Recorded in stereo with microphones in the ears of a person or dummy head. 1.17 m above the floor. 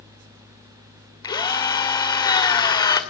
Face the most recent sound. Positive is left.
turn(degrees=20)  # may be behind; listen again after turning